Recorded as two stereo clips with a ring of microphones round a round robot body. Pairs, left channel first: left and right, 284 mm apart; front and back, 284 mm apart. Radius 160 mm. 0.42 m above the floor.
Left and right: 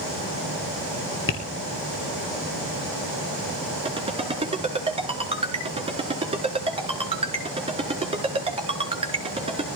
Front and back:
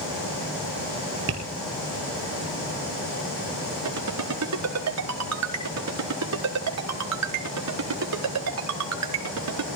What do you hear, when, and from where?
1.3 s tapping: 130° left, 3 m
3.9 s a ringtone: 160° right, 4.5 m